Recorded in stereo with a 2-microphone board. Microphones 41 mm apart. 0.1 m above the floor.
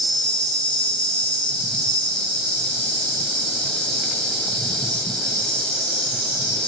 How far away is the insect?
About 1.9 m.